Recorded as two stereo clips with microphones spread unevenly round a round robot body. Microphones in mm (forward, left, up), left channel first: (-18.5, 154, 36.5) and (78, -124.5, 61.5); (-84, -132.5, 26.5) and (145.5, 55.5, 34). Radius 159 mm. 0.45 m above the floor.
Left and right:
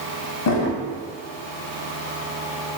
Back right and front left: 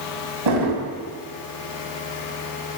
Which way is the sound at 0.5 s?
65° left.